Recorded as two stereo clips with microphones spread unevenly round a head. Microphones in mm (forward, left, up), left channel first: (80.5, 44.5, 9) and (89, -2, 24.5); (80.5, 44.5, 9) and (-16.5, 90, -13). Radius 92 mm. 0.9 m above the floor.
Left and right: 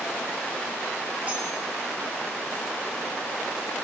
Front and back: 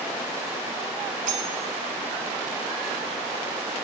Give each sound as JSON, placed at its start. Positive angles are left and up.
{"t": 1.3, "sound": "cutlery clinking", "azimuth_deg": -160, "distance_m": 2.0}